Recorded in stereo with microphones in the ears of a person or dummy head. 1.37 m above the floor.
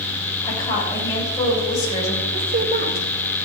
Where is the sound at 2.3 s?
50° right (ahead or behind), 4.5 m.